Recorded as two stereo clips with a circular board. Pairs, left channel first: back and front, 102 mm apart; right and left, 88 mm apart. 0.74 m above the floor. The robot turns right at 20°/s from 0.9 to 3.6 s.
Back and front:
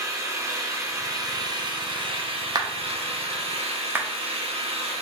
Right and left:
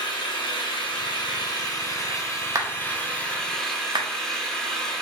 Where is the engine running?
60° right, 0.9 m; by 5.0 s 5° right, 0.9 m.